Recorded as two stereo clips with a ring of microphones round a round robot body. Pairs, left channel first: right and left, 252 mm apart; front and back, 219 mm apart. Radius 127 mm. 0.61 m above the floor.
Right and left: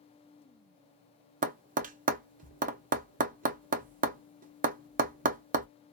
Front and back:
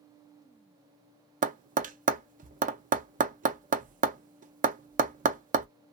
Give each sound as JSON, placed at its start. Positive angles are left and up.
{"t": 1.4, "sound": "tapping", "azimuth_deg": 140, "distance_m": 0.6}